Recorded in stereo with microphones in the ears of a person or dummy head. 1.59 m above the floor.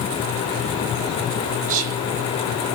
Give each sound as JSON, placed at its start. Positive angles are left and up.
{"t": 1.7, "sound": "whispering", "side_deg": -40, "distance_m": 1.3}